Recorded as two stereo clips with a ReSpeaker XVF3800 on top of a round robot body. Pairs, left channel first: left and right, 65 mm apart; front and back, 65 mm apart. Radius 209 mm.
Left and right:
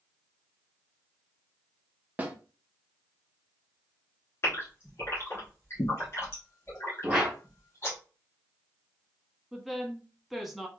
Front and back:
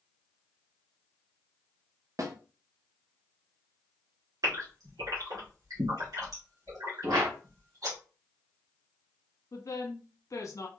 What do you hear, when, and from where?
2.2 s a snare drum: 155° right, 1.0 m
4.4 s a gasp: 145° left, 1.7 m
7.0 s a whoosh: 165° right, 1.8 m
9.5 s a woman speaking: straight ahead, 1.4 m